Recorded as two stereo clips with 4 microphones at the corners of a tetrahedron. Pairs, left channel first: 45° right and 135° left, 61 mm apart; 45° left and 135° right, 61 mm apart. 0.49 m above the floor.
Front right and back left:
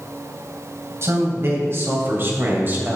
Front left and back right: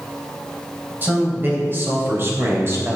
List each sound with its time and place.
1.0 s a man speaking: 170° left, 3.5 m; by 3.0 s 175° right, 2.5 m